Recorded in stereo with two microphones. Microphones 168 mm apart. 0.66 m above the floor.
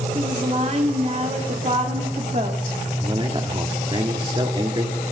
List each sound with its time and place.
0.1 s a woman speaking: 40° right (ahead or behind), 1.4 m
3.0 s a man speaking: 30° right (ahead or behind), 1.3 m